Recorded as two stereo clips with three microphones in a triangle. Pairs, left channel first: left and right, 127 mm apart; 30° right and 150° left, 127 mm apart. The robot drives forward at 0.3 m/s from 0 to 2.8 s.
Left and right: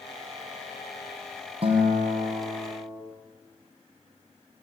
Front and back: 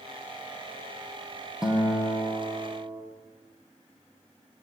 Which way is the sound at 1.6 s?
125° right.